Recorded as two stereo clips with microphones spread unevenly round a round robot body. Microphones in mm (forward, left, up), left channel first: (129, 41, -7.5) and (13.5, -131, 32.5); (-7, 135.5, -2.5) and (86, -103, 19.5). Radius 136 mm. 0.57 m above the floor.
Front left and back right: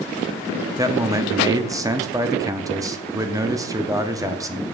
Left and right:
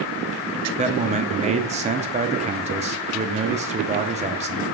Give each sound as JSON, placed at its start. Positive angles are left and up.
{"t": 0.8, "sound": "a man speaking", "azimuth_deg": -45, "distance_m": 0.6}